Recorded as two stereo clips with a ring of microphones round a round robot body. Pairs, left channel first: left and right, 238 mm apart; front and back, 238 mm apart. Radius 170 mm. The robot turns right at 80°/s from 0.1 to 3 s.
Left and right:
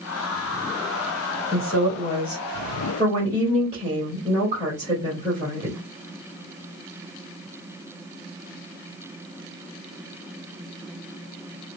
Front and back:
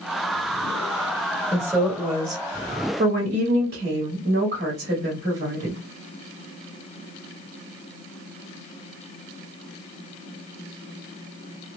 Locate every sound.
1.5 s a woman speaking: 85° left, 1.5 m; by 5.8 s 160° right, 1.5 m